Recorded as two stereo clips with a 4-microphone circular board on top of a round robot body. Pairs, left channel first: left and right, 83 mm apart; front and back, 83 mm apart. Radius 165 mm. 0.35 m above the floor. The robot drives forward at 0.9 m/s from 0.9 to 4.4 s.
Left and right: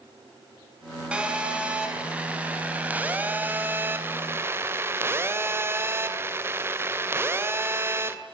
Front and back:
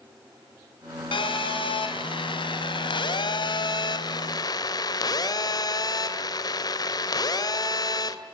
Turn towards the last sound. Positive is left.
turn(degrees=-30)